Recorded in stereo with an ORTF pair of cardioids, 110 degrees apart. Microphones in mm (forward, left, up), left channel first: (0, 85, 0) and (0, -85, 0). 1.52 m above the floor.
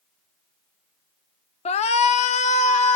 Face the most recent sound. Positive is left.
turn(degrees=45)